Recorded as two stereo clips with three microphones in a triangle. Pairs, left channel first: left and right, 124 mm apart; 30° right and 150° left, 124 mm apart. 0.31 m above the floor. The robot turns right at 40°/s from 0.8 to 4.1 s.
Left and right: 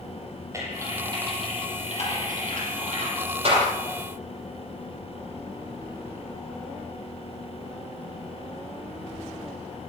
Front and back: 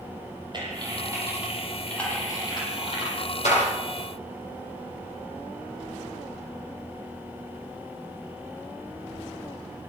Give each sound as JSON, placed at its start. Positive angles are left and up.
{"t": 0.5, "sound": "typing on a keyboard", "azimuth_deg": -155, "distance_m": 9.0}